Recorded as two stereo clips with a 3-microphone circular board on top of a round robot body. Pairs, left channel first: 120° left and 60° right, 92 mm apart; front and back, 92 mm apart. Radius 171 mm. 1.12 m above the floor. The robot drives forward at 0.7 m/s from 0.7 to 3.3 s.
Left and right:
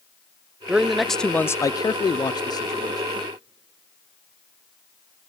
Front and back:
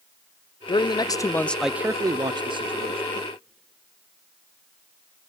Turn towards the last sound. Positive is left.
turn(degrees=170)